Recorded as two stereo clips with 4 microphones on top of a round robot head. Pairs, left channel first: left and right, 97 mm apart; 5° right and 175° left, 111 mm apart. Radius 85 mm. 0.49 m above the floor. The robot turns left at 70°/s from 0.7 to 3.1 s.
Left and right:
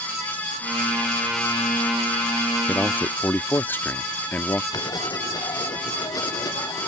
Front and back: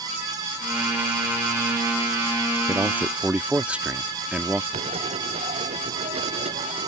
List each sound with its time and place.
2.7 s a man speaking: 145° left; by 4.6 s 115° left
4.7 s writing: 140° left